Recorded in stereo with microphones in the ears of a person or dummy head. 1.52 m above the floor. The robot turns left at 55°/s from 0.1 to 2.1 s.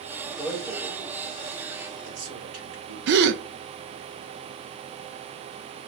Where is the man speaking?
Centre (ahead or behind), 2.5 m; by 3.2 s 85° right, 2.5 m.